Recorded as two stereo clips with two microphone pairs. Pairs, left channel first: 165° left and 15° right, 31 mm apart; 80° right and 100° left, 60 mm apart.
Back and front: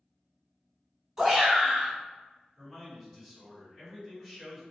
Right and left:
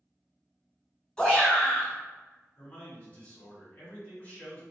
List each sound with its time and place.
1.2 s a shout: 50° right, 1.0 m
2.6 s a man speaking: 110° right, 1.6 m